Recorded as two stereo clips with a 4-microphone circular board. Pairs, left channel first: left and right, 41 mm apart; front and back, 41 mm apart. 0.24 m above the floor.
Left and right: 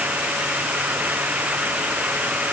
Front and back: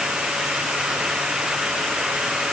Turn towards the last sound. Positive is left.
No sound to turn to.